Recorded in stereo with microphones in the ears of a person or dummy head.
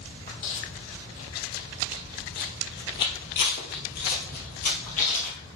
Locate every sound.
0.3 s footsteps: 45° left (ahead or behind), 3 m